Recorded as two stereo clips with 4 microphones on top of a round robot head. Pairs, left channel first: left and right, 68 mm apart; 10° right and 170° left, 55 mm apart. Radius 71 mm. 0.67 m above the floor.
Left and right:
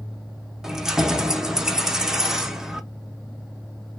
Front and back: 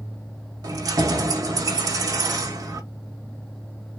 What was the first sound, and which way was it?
Keys jangling, 170° right.